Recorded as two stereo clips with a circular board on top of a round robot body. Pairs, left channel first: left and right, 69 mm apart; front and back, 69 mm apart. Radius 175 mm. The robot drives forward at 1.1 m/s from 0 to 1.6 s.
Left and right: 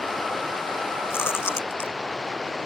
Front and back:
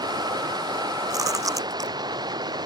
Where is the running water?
Straight behind.